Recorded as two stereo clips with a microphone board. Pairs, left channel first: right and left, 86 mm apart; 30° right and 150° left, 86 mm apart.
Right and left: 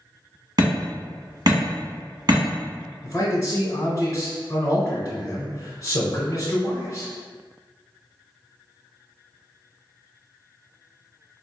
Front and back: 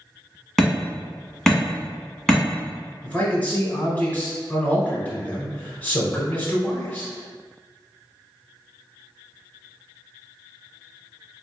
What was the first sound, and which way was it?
Hammering, 55° left.